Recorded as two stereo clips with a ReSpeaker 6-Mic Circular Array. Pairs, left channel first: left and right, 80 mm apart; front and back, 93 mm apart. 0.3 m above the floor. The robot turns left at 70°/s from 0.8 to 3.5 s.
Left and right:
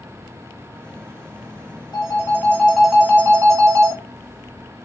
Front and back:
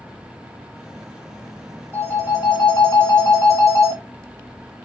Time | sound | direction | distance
1.9 | a phone ringing | 60° left | 1.3 m